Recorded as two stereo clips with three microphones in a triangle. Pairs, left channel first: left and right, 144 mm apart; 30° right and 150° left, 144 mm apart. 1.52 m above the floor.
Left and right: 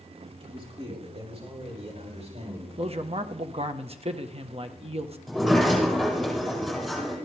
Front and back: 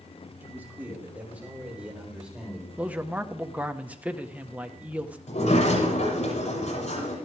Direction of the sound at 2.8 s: 130° right.